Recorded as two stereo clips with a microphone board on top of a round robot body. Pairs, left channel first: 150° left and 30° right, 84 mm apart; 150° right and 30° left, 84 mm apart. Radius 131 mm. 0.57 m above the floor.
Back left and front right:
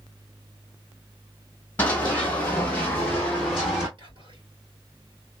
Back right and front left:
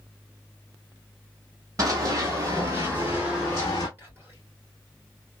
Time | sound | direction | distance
1.8 | running footsteps | 80° left | 1.0 m
4.0 | whispering | 30° right | 2.5 m